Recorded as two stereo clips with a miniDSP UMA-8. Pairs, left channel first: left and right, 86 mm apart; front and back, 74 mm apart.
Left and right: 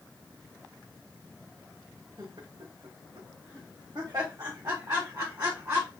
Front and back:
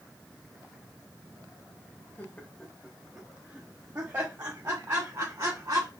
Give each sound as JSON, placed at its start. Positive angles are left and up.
{"t": 2.2, "sound": "laughter", "azimuth_deg": -65, "distance_m": 0.7}